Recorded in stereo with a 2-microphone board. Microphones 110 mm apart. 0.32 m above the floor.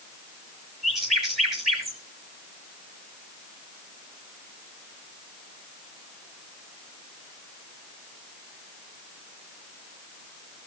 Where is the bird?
Centre (ahead or behind), 3.5 m.